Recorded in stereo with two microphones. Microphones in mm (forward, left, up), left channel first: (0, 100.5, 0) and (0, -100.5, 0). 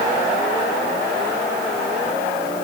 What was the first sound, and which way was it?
Only background noise.